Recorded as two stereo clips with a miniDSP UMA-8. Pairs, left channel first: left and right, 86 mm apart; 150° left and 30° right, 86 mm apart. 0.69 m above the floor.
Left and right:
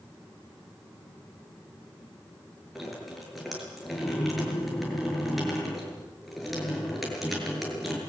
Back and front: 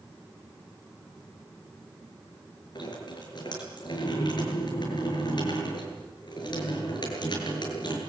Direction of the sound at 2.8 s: Straight behind.